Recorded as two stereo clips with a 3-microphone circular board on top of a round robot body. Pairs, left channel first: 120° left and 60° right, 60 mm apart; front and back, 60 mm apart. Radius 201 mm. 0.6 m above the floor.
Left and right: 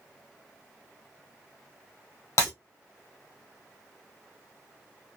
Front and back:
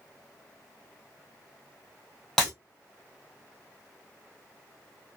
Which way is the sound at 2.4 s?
85° left.